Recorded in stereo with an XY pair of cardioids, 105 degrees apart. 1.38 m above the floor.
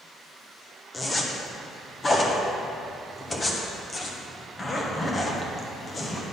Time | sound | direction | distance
0.9 | a zipper | 30° left | 1.2 m